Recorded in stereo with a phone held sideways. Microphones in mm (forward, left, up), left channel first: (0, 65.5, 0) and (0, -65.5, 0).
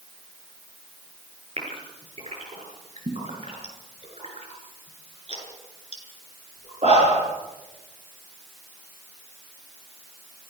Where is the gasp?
50° right (ahead or behind), 7.5 m.